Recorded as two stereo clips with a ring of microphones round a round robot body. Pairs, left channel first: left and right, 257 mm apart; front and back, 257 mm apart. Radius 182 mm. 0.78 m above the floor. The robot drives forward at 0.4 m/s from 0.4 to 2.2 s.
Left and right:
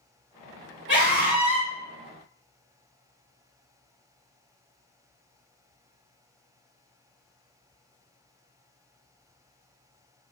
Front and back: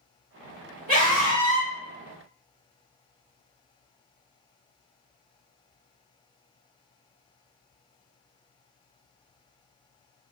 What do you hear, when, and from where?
0.9 s a scream: 125° right, 1.5 m; by 1.7 s 135° right, 1.7 m